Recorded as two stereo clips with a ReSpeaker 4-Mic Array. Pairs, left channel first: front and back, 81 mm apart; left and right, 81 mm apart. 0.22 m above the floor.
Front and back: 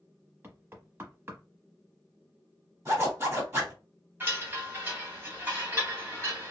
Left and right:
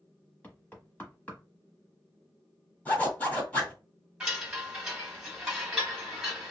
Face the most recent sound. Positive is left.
turn(degrees=-155)